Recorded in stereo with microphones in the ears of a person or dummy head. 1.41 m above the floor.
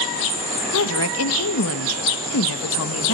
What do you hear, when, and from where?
0.7 s a woman speaking: 75° left (ahead or behind), 1.3 m